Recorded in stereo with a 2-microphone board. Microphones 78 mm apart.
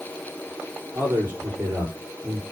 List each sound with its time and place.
0.9 s a man speaking: 35° right (ahead or behind), 7.5 m